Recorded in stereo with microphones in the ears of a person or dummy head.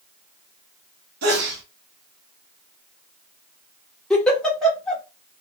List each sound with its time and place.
1.2 s a sneeze: 60° right (ahead or behind), 0.9 m
4.1 s a giggle: 5° left (ahead or behind), 1.1 m